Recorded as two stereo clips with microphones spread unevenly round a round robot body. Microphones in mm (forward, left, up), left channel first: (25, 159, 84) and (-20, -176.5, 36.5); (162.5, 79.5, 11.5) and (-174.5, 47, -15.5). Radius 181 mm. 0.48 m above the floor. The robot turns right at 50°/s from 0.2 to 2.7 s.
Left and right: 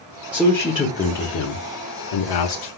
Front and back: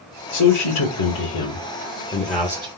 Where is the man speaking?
20° right, 1.1 m; by 2.7 s 100° left, 1.1 m.